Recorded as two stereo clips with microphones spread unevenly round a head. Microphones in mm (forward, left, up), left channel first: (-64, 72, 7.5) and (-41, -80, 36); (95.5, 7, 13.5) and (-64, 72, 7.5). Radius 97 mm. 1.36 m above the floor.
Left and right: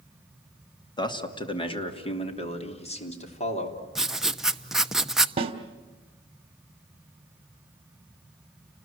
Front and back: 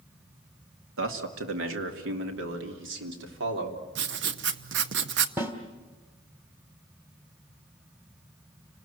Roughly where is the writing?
Behind.